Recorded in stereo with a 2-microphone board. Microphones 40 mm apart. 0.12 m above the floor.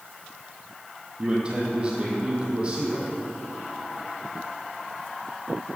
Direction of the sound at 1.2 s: 30° right (ahead or behind).